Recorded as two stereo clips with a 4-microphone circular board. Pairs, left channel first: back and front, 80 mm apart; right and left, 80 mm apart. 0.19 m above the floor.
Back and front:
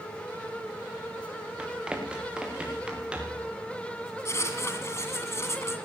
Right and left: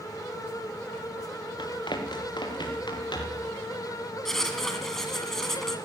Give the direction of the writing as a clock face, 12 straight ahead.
6 o'clock.